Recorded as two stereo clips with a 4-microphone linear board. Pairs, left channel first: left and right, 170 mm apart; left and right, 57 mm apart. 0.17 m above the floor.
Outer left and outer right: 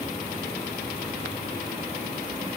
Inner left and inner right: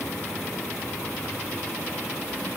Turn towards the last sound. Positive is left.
No sound to turn to.